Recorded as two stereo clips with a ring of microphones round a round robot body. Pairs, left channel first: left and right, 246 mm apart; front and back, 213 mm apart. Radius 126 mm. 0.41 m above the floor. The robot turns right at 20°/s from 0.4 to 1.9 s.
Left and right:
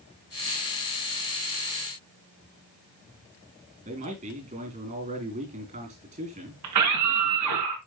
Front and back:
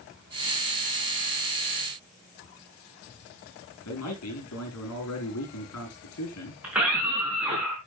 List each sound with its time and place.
3.9 s a man speaking: 30° right, 6 m
6.6 s a scream: 95° right, 4.5 m